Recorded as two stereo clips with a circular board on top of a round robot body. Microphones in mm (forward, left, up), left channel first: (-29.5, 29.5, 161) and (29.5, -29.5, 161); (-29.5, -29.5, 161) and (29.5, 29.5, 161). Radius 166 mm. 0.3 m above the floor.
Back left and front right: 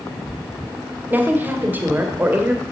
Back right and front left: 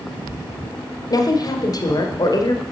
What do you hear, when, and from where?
1.1 s a woman speaking: 110° right, 1.6 m